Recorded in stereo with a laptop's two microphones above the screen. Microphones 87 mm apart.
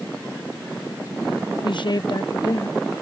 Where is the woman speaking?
60° left (ahead or behind); by 3.0 s 45° left (ahead or behind).